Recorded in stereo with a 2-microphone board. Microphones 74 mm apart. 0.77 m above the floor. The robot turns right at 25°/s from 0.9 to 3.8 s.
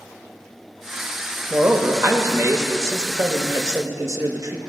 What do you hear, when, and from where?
1.5 s a man speaking: 145° right, 0.8 m; by 4.6 s 85° right, 0.8 m